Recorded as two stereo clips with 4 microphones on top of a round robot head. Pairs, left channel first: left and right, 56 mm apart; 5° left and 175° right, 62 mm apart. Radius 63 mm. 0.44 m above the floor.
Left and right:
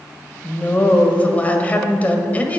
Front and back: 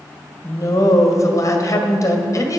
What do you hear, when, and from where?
0.4 s a woman speaking: 30° left, 2 m